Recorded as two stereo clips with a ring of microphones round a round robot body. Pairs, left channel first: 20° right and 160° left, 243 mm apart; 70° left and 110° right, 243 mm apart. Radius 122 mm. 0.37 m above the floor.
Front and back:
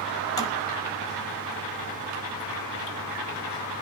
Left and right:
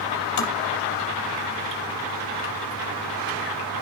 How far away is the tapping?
About 5.5 m.